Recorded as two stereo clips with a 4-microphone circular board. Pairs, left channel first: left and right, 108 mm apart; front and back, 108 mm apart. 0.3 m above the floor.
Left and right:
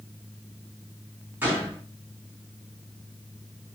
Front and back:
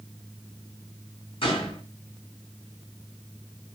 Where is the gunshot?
20° right, 2.5 m.